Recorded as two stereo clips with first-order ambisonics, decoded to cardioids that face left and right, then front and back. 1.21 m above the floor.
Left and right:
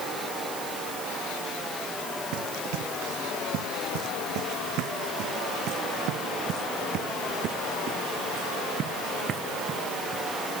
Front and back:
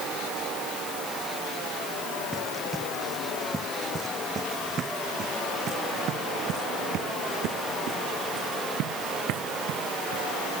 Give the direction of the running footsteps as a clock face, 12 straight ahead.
3 o'clock.